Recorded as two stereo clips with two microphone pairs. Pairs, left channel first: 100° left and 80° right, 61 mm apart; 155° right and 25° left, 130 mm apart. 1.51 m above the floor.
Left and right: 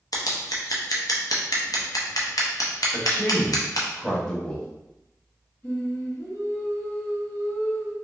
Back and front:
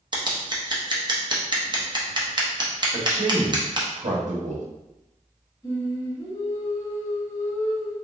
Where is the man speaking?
25° left, 0.9 m.